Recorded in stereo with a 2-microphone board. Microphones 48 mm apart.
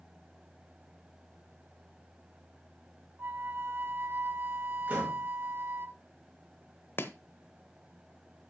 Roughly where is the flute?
Right.